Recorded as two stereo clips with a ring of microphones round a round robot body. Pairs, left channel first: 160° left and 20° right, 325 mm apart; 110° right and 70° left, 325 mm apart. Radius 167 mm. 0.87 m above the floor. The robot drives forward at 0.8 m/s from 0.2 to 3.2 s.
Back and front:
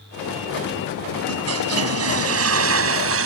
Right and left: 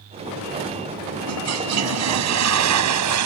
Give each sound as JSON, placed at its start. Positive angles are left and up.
{"t": 1.3, "sound": "a toilet flushing", "azimuth_deg": 25}